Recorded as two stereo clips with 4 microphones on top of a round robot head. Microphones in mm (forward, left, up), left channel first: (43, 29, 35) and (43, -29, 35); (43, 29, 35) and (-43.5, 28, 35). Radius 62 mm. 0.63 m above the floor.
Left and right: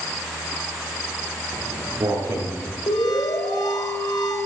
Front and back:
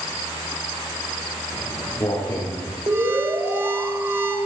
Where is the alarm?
120° left, 3.5 m.